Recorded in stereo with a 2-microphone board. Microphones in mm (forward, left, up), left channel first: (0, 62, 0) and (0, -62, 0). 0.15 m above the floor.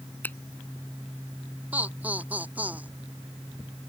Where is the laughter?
15° right (ahead or behind).